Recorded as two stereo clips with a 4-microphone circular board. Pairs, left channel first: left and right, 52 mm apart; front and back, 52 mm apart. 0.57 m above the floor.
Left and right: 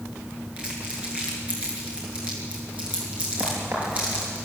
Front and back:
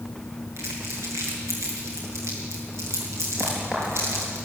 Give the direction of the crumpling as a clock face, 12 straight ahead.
5 o'clock.